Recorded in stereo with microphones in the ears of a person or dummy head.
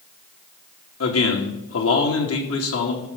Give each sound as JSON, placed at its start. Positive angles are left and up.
{"t": 1.0, "sound": "a man speaking", "side_deg": 70, "distance_m": 2.5}